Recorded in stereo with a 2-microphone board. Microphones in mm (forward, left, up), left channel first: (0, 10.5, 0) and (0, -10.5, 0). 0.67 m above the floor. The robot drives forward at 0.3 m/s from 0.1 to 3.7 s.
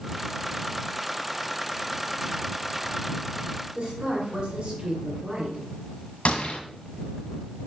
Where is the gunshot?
60° left (ahead or behind), 1.4 m.